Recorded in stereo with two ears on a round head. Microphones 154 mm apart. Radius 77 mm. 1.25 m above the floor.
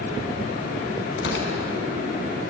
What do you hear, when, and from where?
1.2 s tearing paper: 80° left, 4 m